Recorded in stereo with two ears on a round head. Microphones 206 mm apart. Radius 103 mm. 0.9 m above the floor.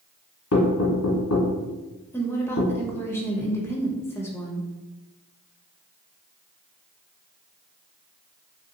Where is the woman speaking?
10° left (ahead or behind), 0.6 m.